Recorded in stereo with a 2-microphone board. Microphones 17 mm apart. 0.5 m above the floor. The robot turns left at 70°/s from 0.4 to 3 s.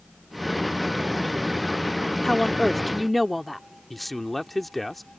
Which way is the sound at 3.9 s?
Centre (ahead or behind).